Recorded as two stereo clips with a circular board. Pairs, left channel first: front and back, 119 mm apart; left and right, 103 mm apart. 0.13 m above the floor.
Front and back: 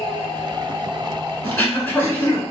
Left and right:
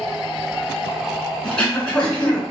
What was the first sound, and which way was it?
Throat clearing, 35° left.